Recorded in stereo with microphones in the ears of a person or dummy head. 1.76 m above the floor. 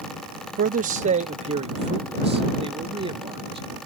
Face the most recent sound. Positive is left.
turn(degrees=-30)  # may be behind; listen again after turning